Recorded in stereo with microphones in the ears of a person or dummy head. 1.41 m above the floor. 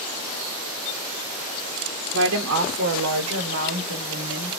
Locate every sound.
2.1 s a woman speaking: 60° right (ahead or behind), 0.7 m; by 4.6 s 55° right (ahead or behind), 1.7 m